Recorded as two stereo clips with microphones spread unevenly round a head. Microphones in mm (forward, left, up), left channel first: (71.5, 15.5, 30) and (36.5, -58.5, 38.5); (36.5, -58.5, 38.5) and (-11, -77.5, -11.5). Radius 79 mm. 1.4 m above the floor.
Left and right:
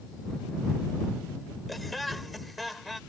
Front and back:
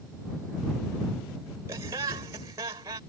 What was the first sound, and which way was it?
Laughter, 155° left.